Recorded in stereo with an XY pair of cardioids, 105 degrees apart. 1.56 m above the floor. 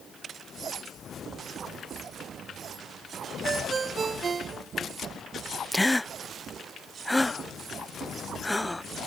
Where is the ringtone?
35° right.